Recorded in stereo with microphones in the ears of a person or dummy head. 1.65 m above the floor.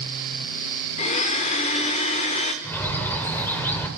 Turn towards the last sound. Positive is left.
turn(degrees=10)  # may be behind; listen again after turning